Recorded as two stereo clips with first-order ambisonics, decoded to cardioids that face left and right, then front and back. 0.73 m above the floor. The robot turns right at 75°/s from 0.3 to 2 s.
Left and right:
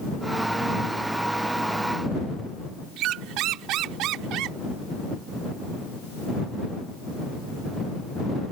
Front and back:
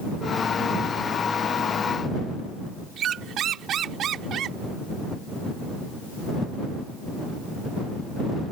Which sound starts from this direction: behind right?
A squeak, at 3.0 s.